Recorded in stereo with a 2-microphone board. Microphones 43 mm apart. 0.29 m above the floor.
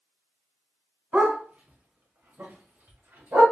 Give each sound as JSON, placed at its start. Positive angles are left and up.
{"t": 1.1, "sound": "a dog barking", "side_deg": -40, "distance_m": 1.1}